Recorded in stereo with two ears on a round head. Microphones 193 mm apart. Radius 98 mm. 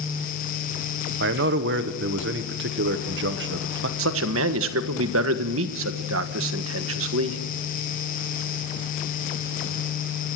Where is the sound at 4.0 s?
65° right (ahead or behind), 1.5 m.